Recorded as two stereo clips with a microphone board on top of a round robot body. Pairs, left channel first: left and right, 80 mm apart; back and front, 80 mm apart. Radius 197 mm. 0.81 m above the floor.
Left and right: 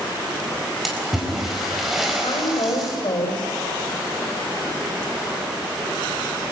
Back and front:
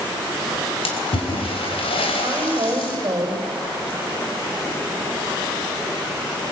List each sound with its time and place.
0.8 s a splash: straight behind, 4 m
2.2 s a woman speaking: 55° left, 6.5 m